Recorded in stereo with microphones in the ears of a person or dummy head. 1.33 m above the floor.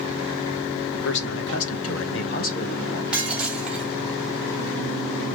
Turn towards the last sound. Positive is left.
turn(degrees=0)  # may be behind; listen again after turning